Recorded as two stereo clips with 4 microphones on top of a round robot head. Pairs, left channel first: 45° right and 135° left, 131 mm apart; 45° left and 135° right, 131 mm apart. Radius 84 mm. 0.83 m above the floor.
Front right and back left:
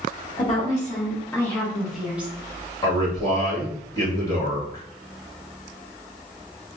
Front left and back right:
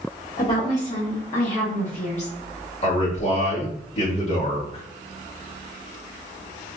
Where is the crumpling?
I don't hear crumpling.